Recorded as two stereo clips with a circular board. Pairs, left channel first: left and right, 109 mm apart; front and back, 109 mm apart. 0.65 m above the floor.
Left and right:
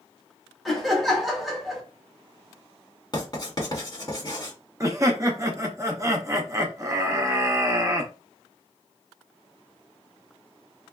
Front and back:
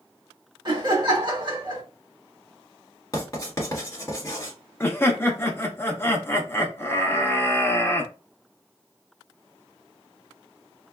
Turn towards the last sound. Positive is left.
turn(degrees=-55)